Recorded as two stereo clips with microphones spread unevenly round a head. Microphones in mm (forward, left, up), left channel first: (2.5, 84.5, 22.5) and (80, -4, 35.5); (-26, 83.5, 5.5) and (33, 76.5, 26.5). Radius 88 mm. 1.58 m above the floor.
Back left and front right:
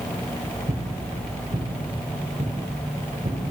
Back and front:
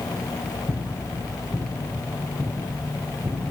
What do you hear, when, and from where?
0.7 s footsteps: 85° right, 2.5 m; by 3.4 s 40° right, 3.5 m